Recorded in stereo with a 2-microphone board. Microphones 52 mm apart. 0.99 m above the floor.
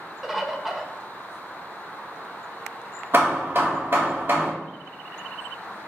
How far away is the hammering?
About 1.2 m.